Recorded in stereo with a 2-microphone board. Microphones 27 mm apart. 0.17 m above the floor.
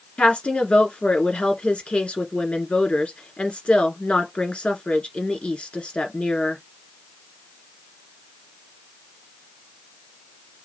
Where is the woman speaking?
55° left (ahead or behind), 1.7 m.